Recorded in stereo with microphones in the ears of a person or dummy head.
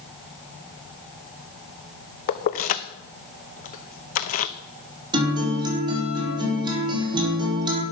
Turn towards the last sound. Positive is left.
turn(degrees=-25)  # may be behind; listen again after turning